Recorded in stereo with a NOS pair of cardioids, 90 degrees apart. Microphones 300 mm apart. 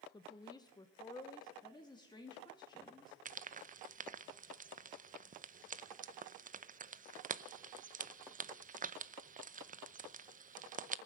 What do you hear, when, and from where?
0.1 s a woman speaking: 15° left, 1.0 m
1.6 s a woman speaking: 15° left, 2 m
3.2 s frying: 30° right, 0.6 m